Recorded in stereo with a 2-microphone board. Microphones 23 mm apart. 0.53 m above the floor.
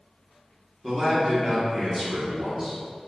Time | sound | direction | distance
0.8 | a man speaking | 20° right (ahead or behind) | 0.8 m